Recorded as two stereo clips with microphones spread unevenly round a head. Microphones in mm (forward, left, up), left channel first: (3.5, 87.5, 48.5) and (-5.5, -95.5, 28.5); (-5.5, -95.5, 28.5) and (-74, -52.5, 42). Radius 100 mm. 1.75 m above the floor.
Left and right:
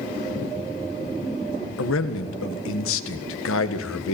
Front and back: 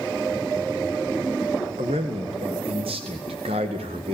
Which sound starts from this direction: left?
A man speaking, at 1.8 s.